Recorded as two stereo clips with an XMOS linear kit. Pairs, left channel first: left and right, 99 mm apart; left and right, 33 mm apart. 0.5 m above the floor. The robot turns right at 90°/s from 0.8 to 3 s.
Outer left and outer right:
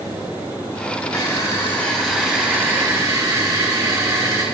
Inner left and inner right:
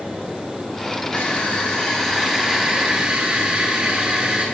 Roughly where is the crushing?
Left.